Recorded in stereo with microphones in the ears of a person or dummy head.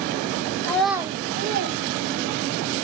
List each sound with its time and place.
0.6 s a child speaking: 20° left (ahead or behind), 0.5 m; by 2.7 s 75° right (ahead or behind), 1.4 m